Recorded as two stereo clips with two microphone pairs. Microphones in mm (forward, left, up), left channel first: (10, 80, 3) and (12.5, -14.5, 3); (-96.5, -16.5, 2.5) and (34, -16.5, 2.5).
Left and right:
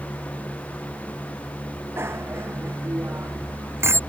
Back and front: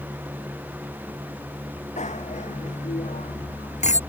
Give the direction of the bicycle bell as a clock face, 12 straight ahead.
5 o'clock.